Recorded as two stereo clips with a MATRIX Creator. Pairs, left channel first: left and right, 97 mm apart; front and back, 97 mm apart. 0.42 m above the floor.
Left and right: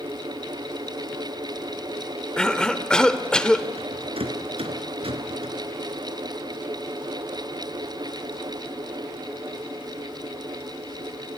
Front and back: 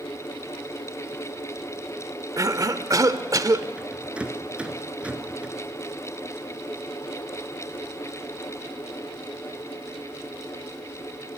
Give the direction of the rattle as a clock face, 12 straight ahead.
3 o'clock.